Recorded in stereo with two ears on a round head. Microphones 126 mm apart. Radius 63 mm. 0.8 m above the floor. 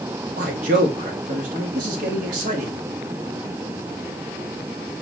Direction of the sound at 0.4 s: 65° right (ahead or behind).